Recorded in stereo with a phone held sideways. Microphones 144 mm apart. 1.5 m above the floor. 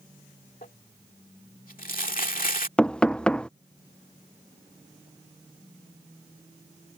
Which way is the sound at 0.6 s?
75° left (ahead or behind).